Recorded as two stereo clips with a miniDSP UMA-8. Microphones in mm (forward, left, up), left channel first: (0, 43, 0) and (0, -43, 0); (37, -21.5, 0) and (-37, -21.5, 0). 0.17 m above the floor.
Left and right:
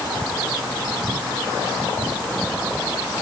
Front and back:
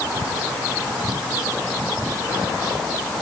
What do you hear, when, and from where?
Only background noise.